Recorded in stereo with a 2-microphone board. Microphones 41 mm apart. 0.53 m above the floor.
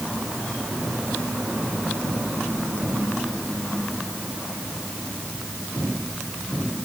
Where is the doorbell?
No doorbell in this recording.